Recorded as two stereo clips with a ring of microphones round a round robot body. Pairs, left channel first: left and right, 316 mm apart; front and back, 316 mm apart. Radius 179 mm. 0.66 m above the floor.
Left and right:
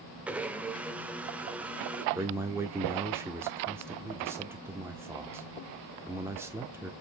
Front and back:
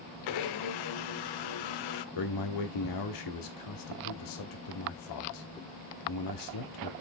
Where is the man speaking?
10° right, 1.4 m.